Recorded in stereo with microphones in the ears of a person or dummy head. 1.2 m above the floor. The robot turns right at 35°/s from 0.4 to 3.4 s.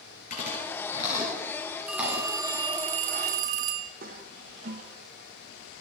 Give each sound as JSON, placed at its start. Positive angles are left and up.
{"t": 0.3, "sound": "chewing", "side_deg": 45, "distance_m": 4.5}
{"t": 1.9, "sound": "a phone ringing", "azimuth_deg": -175, "distance_m": 0.6}
{"t": 4.0, "sound": "a toilet flushing", "side_deg": -50, "distance_m": 1.6}